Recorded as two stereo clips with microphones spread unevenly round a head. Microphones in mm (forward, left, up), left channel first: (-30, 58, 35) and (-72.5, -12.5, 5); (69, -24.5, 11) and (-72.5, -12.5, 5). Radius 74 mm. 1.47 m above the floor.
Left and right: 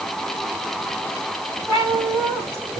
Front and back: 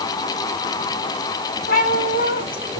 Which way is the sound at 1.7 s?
15° right.